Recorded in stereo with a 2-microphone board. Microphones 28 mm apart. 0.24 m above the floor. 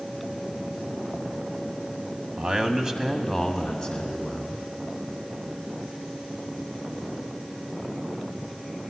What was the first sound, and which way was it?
A man speaking, 45° right (ahead or behind).